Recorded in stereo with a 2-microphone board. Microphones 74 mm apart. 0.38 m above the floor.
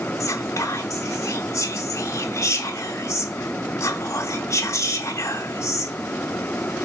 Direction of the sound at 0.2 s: 45° left (ahead or behind).